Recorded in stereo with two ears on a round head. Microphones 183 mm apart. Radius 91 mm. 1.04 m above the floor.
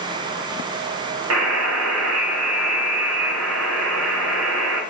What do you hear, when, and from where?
1.3 s a buzzer: 75° right (ahead or behind), 0.8 m